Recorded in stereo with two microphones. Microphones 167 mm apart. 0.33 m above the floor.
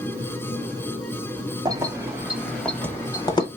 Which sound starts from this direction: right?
Keys jangling, at 1.6 s.